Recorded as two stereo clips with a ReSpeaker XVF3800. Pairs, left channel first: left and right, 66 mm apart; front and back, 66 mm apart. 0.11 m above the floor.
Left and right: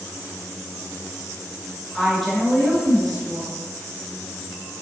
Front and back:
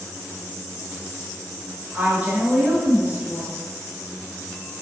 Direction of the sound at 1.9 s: 175° left.